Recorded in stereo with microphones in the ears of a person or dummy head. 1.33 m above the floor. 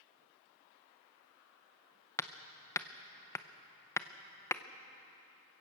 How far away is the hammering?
About 0.6 m.